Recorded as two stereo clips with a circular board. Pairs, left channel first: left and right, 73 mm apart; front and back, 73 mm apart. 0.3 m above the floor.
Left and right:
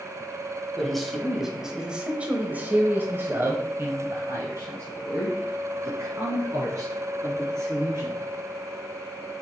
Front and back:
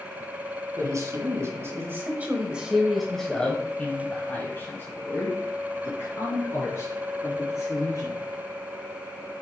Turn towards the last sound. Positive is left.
turn(degrees=-35)